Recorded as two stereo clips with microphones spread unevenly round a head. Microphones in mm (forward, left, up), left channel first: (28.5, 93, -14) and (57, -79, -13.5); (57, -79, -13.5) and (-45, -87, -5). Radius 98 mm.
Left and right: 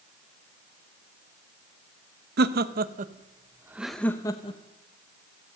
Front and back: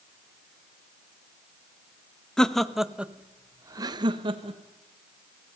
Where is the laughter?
75° right, 1.3 m; by 4.6 s 155° left, 1.2 m.